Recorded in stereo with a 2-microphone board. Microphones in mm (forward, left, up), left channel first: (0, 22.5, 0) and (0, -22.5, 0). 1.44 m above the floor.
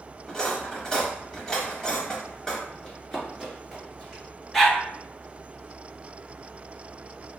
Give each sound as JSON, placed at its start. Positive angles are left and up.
{"t": 0.3, "sound": "cutlery clinking", "side_deg": 15, "distance_m": 0.9}
{"t": 2.8, "sound": "running footsteps", "side_deg": 15, "distance_m": 1.4}
{"t": 4.5, "sound": "a dog barking", "side_deg": 5, "distance_m": 0.8}